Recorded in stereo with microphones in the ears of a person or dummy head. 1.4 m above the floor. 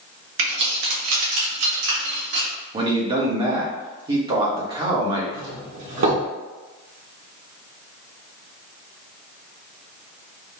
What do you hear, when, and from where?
0.4 s keys jangling: 75° right (ahead or behind), 1.9 m; by 2.5 s 60° right (ahead or behind), 2.0 m
2.7 s a man speaking: 25° right (ahead or behind), 1.2 m
5.3 s a doorbell: 70° right (ahead or behind), 1.9 m